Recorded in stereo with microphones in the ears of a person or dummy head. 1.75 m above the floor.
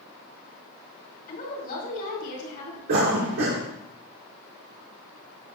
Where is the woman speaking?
55° left (ahead or behind), 3 m.